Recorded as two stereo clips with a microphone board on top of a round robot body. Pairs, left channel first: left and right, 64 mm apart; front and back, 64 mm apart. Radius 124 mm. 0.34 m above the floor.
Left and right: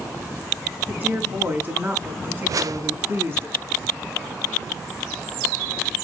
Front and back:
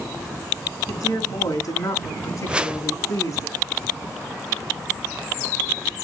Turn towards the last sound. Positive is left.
turn(degrees=-105)